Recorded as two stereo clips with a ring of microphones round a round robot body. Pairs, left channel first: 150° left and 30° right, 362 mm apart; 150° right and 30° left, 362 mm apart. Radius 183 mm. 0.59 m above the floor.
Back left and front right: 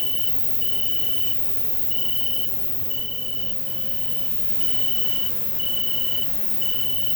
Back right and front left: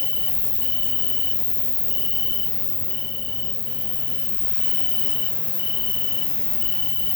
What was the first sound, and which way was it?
An insect, 170° right.